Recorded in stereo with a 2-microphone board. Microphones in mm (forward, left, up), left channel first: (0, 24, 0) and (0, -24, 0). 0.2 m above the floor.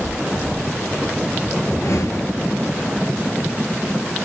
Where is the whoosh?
80° left, 1.0 m.